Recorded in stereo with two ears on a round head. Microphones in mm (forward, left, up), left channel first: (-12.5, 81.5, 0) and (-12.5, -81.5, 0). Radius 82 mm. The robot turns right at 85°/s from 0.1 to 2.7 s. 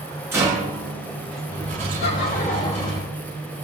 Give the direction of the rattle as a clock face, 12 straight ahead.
6 o'clock.